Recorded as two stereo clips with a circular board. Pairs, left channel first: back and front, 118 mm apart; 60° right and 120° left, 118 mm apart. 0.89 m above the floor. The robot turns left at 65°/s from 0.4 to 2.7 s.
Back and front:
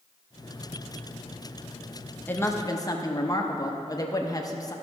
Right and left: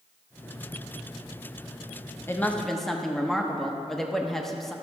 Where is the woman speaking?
115° right, 1.0 m; by 4.7 s 145° right, 1.0 m.